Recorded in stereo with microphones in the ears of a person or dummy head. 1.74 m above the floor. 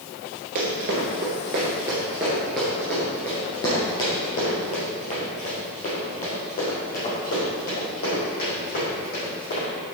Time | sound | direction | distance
0.6 | running footsteps | 30° right (ahead or behind) | 1.9 m